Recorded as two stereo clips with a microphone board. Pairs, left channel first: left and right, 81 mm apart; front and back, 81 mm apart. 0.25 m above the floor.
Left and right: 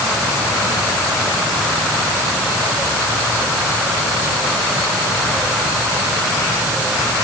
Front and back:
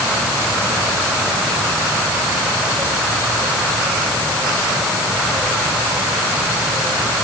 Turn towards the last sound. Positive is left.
No sound to turn to.